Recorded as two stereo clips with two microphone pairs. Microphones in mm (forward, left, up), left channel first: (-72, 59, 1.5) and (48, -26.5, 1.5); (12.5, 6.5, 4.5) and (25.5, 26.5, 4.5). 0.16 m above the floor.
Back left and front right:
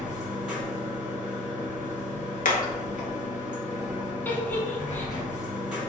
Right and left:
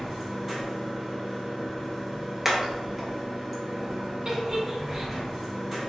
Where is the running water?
35° left, 1.2 m.